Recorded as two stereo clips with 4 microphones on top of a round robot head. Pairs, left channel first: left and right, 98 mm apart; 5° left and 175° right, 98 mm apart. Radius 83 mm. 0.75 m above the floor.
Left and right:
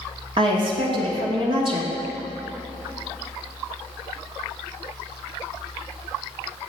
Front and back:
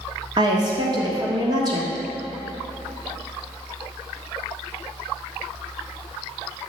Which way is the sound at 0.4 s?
125° right.